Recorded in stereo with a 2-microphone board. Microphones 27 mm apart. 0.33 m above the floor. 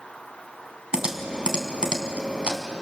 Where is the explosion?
I don't hear an explosion.